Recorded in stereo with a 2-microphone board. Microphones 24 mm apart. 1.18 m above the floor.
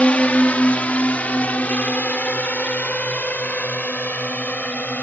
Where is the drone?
60° left (ahead or behind); by 5.0 s 80° left.